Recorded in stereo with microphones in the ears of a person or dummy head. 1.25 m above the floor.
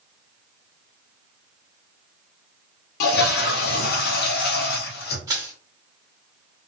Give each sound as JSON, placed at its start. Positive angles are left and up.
{"t": 3.0, "sound": "a toilet flushing", "side_deg": 55, "distance_m": 0.6}
{"t": 5.3, "sound": "crushing", "side_deg": -20, "distance_m": 1.1}